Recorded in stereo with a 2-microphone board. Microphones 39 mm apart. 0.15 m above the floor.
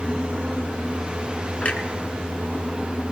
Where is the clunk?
40° left (ahead or behind), 1.4 m.